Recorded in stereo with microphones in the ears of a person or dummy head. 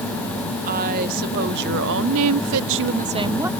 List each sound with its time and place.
0.6 s a woman speaking: 40° right (ahead or behind); by 3.5 s 10° right (ahead or behind)